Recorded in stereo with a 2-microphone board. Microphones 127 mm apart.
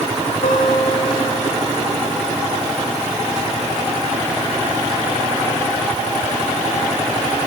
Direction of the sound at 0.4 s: 75° left (ahead or behind).